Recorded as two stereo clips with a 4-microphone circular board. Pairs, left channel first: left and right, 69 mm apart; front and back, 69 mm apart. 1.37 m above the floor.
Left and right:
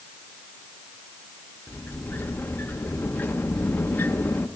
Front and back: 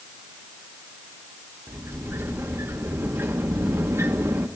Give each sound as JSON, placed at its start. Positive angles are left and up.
{"t": 1.7, "sound": "a sliding door", "azimuth_deg": 145, "distance_m": 1.0}